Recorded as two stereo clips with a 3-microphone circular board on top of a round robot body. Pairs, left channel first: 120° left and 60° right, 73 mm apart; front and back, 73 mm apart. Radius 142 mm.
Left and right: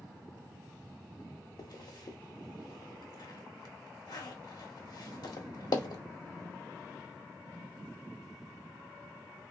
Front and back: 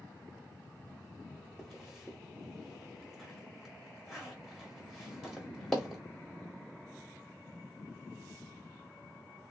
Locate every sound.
1.6 s a zipper: 90° left, 1.1 m